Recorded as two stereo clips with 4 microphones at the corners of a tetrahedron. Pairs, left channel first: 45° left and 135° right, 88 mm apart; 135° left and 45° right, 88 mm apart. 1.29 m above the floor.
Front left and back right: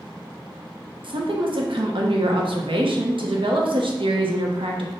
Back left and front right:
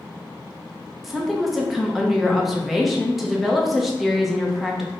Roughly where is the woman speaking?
Behind right.